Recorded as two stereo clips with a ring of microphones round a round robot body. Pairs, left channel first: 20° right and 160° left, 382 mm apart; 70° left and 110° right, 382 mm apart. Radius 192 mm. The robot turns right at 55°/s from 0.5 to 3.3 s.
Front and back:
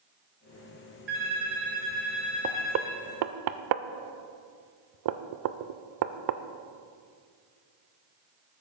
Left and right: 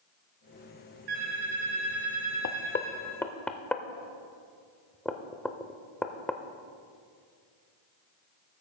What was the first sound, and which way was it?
A phone ringing, 140° right.